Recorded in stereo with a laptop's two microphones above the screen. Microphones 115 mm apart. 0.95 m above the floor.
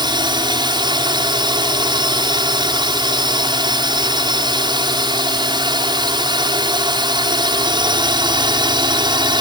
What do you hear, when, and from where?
0.0 s a drone: 40° right (ahead or behind)